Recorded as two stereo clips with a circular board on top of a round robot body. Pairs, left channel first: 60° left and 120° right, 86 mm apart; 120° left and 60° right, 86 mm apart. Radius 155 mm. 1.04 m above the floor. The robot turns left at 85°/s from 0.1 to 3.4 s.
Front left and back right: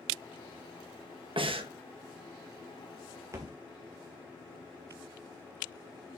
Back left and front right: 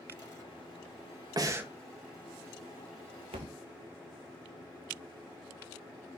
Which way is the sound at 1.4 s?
105° right.